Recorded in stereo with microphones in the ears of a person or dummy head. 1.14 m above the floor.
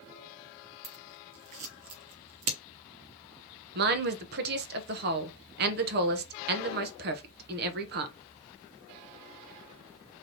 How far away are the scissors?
About 0.8 m.